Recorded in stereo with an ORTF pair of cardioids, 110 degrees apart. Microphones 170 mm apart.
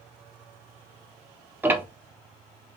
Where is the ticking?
10° right, 0.5 m.